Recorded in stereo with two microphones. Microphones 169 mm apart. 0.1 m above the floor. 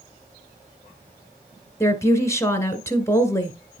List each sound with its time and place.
1.8 s a woman speaking: 15° left (ahead or behind), 1.5 m